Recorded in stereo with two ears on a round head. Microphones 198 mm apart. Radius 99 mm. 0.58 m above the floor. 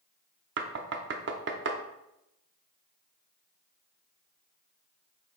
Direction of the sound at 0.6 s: 55° right (ahead or behind).